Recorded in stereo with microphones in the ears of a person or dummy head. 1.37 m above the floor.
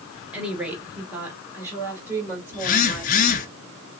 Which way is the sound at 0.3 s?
5° right (ahead or behind).